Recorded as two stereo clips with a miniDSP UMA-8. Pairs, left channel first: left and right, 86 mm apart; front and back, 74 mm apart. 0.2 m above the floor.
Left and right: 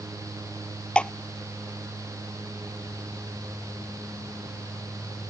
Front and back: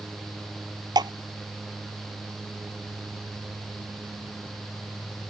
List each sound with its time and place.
0.9 s dripping: 170° left